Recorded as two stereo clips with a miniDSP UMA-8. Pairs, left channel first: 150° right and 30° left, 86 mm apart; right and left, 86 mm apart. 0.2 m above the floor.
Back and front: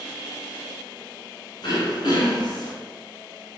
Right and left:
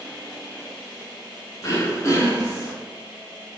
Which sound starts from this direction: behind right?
Throat clearing, at 1.6 s.